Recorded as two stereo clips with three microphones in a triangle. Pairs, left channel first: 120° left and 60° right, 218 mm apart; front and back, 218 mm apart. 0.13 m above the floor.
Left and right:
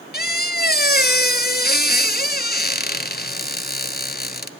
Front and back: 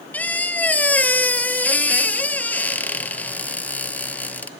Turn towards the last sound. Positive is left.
turn(degrees=80)